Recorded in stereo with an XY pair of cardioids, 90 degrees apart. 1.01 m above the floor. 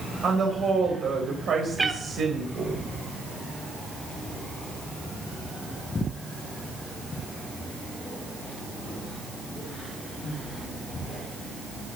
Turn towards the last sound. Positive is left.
turn(degrees=-25)